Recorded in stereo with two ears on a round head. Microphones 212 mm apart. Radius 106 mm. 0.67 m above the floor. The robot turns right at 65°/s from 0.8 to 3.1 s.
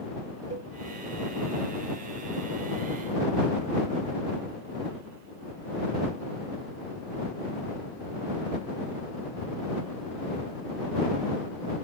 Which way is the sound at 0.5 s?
30° right (ahead or behind).